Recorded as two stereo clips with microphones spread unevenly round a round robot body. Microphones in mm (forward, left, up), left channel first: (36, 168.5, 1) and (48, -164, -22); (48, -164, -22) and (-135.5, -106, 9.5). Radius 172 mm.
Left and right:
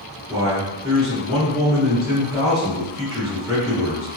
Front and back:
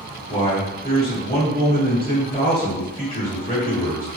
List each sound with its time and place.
0.3 s a man speaking: straight ahead, 1.3 m